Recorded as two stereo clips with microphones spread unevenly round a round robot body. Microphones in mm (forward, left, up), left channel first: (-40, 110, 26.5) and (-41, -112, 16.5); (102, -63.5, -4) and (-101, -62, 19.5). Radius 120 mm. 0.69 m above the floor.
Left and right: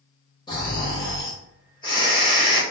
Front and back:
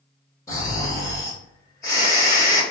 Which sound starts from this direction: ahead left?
Snoring, at 0.5 s.